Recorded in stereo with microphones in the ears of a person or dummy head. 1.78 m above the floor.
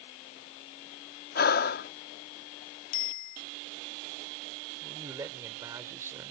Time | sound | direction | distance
1.4 | breathing | 45° left (ahead or behind) | ?
2.9 | a bicycle bell | 40° left (ahead or behind) | ?
4.8 | a man speaking | 25° right (ahead or behind) | ?